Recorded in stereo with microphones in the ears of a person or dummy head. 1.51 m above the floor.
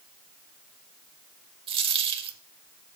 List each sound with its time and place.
1.7 s a dropped coin: 35° right (ahead or behind), 2.5 m